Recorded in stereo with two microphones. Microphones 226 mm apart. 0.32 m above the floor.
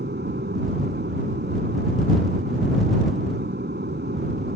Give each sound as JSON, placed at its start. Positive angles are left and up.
{"t": 0.0, "sound": "an aircraft", "side_deg": -50}